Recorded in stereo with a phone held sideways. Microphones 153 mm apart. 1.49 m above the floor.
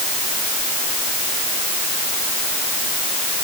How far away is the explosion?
I don't hear an explosion.